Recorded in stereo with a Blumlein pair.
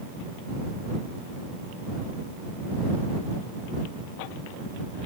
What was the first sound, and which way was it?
Only background noise.